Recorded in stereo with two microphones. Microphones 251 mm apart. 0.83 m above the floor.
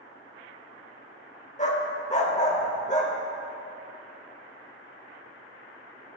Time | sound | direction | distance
1.6 | a dog barking | 30° left (ahead or behind) | 0.8 m